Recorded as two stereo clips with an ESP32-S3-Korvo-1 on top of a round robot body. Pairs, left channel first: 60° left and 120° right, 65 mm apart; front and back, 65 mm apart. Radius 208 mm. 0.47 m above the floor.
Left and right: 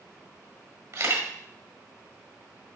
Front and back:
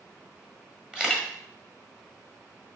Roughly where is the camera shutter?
Right.